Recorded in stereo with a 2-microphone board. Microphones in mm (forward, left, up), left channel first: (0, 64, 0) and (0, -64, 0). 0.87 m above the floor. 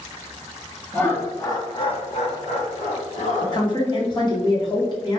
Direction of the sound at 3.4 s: 35° left (ahead or behind).